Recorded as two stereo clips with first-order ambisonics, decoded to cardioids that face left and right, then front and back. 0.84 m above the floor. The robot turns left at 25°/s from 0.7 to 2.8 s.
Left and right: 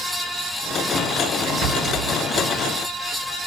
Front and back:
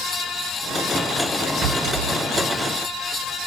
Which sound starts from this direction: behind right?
A rattle, at 1.6 s.